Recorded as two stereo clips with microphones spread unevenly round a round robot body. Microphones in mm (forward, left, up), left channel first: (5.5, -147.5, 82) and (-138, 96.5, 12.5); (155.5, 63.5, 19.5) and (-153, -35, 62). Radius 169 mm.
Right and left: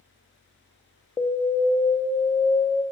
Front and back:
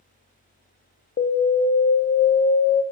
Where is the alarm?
30° left, 0.5 m.